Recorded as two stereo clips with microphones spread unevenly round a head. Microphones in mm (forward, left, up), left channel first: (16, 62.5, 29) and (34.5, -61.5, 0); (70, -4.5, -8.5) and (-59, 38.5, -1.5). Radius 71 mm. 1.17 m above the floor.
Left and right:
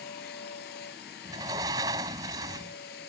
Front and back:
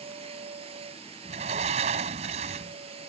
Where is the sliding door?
150° right.